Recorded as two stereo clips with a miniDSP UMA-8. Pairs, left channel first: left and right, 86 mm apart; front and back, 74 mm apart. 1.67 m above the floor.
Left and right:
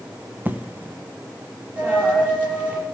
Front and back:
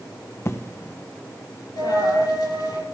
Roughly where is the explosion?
Ahead right.